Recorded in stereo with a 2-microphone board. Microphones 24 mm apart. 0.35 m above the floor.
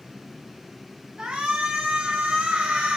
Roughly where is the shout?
Right.